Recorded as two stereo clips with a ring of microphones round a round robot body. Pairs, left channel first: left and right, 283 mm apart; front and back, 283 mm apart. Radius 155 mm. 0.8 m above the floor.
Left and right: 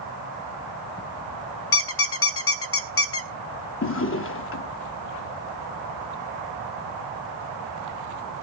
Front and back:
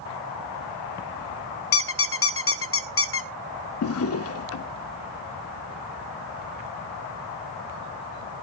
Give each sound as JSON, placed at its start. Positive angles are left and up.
{"t": 1.7, "sound": "a squeak", "azimuth_deg": 45, "distance_m": 0.8}
{"t": 3.8, "sound": "a drawer", "azimuth_deg": 40, "distance_m": 0.8}